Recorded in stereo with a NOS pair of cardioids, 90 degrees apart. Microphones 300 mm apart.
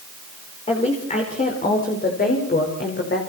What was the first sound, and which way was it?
A woman speaking, 20° left.